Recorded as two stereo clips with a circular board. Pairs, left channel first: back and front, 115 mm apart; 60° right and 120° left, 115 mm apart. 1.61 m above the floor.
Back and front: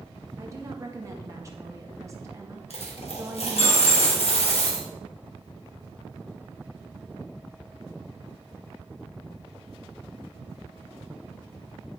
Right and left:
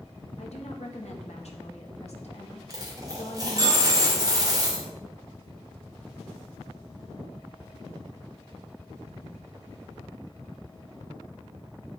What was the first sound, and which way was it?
A woman speaking, 60° right.